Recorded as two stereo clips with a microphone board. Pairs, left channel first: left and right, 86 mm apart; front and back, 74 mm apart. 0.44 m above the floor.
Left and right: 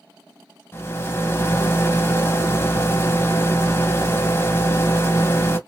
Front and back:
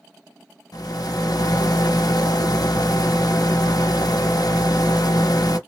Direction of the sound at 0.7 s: 30° left.